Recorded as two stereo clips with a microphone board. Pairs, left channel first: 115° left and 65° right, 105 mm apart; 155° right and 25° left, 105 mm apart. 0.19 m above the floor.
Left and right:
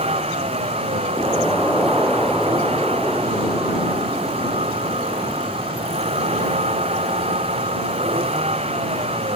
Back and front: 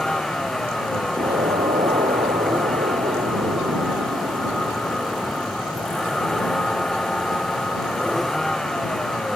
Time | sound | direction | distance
0.0 | a vehicle | 70° right | ?
1.2 | an explosion | 25° left | ?